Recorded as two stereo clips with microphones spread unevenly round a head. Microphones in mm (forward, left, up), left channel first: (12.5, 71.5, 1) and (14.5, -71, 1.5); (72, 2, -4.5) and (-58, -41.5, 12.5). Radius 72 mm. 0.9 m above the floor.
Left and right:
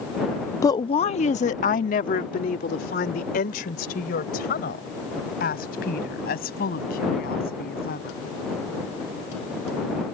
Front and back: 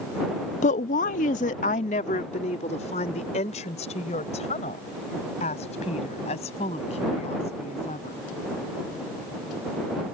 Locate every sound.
0.6 s a woman speaking: 25° left; by 8.2 s 70° left